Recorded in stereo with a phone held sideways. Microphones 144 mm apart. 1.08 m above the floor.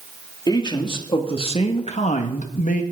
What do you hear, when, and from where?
0.5 s a man speaking: 30° left (ahead or behind), 3 m; by 2.8 s 70° left (ahead or behind), 1.6 m